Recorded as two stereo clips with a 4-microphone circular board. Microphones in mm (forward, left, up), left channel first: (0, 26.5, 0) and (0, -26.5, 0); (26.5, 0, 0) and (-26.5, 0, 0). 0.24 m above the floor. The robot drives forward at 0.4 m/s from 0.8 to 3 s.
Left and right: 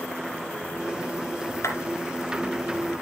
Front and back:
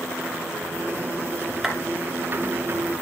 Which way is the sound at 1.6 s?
95° left.